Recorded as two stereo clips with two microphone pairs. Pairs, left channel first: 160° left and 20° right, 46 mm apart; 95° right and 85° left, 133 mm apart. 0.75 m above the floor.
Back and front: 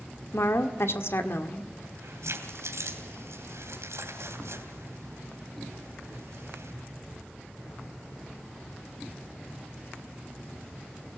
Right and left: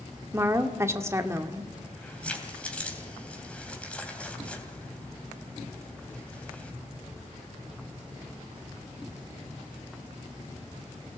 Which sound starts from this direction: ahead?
Keys jangling, at 1.8 s.